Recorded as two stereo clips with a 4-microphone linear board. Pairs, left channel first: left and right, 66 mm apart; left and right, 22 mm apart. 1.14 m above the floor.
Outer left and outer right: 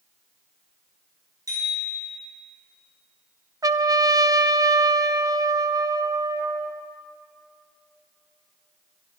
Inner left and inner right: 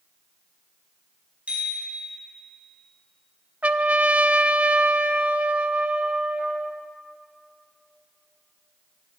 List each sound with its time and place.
1.5 s a bicycle bell: 65° right (ahead or behind), 6 m
3.6 s a trumpet: 70° right (ahead or behind), 0.5 m